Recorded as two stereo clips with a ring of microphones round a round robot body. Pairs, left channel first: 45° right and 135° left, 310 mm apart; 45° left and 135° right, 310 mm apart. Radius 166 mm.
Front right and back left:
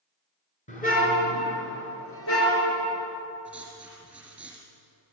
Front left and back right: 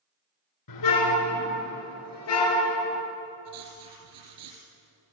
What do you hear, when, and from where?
0.7 s a car horn: 25° left, 4 m; by 3.0 s 5° right, 5.5 m
3.5 s writing: 150° right, 5 m